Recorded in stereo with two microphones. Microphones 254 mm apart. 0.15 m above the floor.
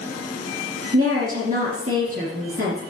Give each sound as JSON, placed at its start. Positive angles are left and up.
{"t": 0.9, "sound": "a woman speaking", "side_deg": -35, "distance_m": 2.5}